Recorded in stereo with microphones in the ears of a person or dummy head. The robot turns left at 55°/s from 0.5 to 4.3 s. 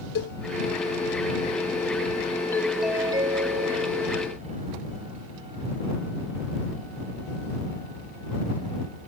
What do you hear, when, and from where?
0.1 s a cowbell: 60° left (ahead or behind)
2.5 s a doorbell: 10° left; by 3.9 s 70° right